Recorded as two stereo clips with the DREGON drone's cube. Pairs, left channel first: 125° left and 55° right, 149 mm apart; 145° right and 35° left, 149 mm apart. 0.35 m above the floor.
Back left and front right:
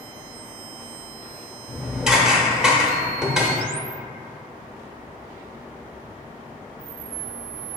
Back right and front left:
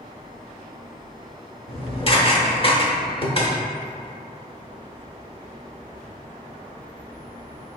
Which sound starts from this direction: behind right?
Dishes clattering, at 1.7 s.